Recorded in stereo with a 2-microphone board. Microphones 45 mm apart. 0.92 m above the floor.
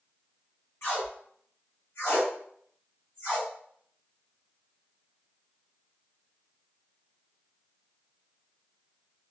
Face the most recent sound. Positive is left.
turn(degrees=65)  # may be behind; listen again after turning